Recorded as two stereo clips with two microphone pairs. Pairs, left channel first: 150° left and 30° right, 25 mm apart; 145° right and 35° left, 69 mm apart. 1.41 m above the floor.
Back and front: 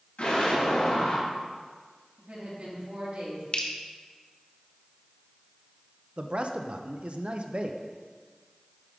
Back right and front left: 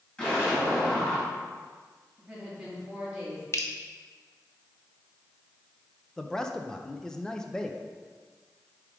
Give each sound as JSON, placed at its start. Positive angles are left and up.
{"t": 0.2, "sound": "an explosion", "azimuth_deg": 145, "distance_m": 3.0}
{"t": 2.2, "sound": "a woman speaking", "azimuth_deg": -40, "distance_m": 2.5}
{"t": 3.5, "sound": "dripping", "azimuth_deg": 180, "distance_m": 0.7}
{"t": 6.2, "sound": "a man speaking", "azimuth_deg": -60, "distance_m": 0.6}